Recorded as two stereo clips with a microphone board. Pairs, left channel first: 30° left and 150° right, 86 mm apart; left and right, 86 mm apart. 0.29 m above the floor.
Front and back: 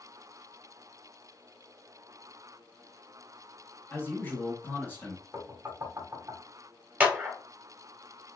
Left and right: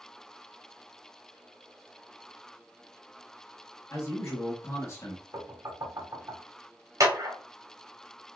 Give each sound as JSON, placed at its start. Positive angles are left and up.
{"t": 3.9, "sound": "a man speaking", "azimuth_deg": 70, "distance_m": 0.9}
{"t": 5.3, "sound": "knocking", "azimuth_deg": -115, "distance_m": 1.2}
{"t": 7.0, "sound": "a clap", "azimuth_deg": -85, "distance_m": 0.9}